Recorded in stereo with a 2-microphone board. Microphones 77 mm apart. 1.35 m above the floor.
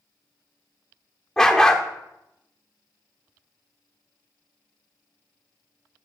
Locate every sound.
1.4 s a dog barking: 10° left (ahead or behind), 1.0 m